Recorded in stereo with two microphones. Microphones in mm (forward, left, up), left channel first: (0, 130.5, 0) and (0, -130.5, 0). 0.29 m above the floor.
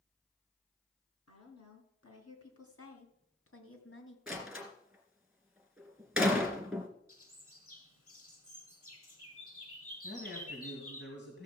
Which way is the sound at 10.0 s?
45° left (ahead or behind).